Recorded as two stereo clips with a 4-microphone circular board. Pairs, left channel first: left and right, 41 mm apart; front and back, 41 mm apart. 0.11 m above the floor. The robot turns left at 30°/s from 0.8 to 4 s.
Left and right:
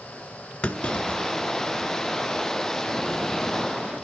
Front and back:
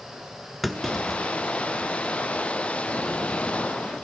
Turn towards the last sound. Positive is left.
turn(degrees=-15)